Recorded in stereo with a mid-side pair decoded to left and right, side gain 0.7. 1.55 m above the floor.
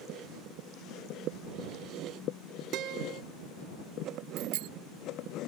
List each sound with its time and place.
2.7 s a guitar: 55° right
4.4 s a bicycle bell: 65° right